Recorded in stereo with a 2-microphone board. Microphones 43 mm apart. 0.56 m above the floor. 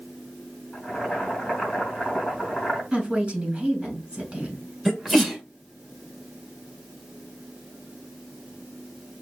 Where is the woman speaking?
25° right (ahead or behind), 2.5 m.